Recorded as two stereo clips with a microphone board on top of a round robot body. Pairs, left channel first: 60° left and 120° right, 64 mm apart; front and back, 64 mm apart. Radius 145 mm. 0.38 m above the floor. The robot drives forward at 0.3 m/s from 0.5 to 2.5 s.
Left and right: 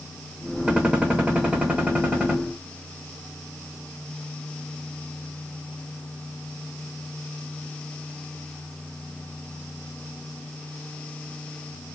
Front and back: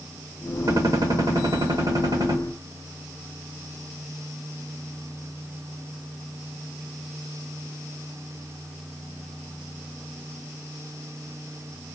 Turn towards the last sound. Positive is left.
turn(degrees=170)